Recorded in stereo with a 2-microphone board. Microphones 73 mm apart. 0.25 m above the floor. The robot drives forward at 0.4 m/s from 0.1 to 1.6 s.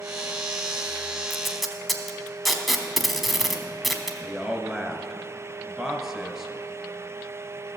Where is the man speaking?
10° right (ahead or behind), 1.0 m.